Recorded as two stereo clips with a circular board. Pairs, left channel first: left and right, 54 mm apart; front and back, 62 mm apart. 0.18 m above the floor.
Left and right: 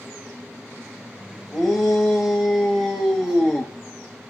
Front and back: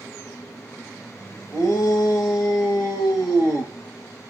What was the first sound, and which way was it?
A shout, 5° left.